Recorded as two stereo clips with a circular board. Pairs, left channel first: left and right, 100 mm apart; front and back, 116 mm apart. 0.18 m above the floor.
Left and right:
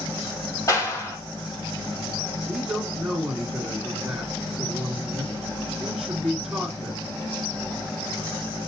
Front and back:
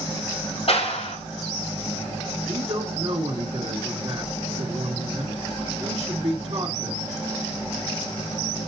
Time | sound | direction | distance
0.7 | a clap | 30° left | 5 m
2.5 | a man speaking | 175° right | 2 m